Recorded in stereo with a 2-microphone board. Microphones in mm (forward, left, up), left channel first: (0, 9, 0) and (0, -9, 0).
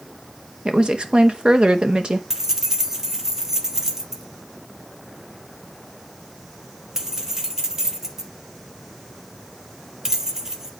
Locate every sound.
0.7 s a woman speaking: 60° right (ahead or behind), 1.1 m
2.3 s keys jangling: 25° right (ahead or behind), 1.3 m